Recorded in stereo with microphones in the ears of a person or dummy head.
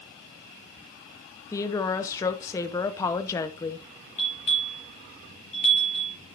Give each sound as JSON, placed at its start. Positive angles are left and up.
{"t": 1.5, "sound": "a woman speaking", "side_deg": 20, "distance_m": 1.0}
{"t": 4.2, "sound": "a bell", "side_deg": 40, "distance_m": 4.5}